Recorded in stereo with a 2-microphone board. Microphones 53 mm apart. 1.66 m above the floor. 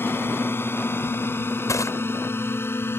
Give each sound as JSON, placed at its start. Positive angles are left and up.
{"t": 0.0, "sound": "a drone", "side_deg": 45}
{"t": 1.7, "sound": "crushing", "side_deg": 75}